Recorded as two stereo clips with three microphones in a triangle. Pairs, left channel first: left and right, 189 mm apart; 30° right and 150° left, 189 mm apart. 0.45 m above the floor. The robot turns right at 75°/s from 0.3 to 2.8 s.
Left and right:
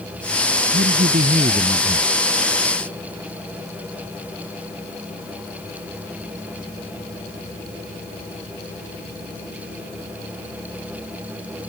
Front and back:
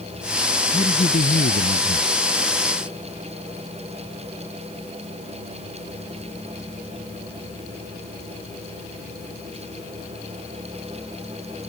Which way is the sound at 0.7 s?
90° right.